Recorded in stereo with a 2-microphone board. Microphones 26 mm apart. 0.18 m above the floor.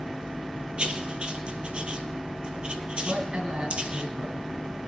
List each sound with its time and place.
0.8 s writing: 45° right (ahead or behind), 1.4 m
3.0 s a man speaking: 50° right (ahead or behind), 1.8 m